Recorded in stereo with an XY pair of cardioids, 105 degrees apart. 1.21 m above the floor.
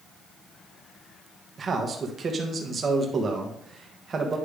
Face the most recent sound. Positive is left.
turn(degrees=-40)